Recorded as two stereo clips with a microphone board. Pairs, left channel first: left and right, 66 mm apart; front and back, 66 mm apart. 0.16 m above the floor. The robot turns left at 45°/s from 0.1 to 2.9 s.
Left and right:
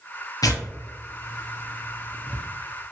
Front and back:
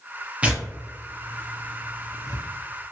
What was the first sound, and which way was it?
Tearing paper, 110° left.